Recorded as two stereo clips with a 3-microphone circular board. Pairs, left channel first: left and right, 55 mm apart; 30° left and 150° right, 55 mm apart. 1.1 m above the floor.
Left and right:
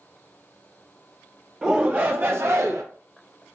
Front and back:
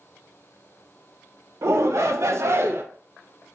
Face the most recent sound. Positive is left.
turn(degrees=-105)